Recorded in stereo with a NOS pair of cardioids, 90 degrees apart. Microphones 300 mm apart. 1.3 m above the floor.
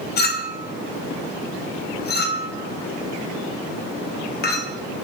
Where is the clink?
35° left, 0.5 m.